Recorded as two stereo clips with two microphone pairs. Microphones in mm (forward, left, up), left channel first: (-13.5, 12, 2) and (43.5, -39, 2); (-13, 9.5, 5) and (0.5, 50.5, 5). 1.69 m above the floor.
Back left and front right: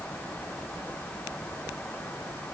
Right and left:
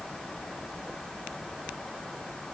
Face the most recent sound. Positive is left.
No sound to turn to.